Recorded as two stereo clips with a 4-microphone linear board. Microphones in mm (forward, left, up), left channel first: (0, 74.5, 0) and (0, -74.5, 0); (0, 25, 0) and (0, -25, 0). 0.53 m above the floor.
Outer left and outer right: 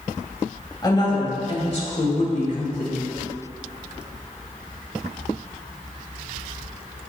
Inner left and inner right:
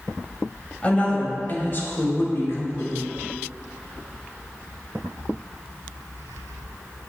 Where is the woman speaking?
30° left (ahead or behind), 3 m; by 3.0 s 65° left (ahead or behind), 2.5 m.